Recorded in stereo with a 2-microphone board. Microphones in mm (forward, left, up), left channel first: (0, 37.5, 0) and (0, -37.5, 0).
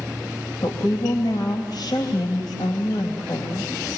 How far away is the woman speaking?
About 3.5 m.